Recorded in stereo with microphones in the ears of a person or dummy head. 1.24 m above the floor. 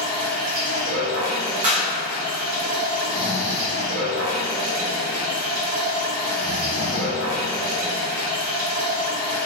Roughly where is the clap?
Right.